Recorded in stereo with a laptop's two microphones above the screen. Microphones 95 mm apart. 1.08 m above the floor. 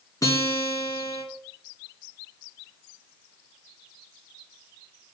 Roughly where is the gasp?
No gasp in this recording.